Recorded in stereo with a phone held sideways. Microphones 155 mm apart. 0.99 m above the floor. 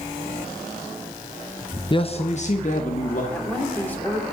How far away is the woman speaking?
About 3 m.